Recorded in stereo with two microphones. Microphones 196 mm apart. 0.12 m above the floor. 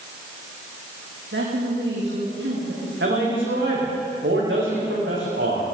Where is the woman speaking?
75° right (ahead or behind), 7.5 m.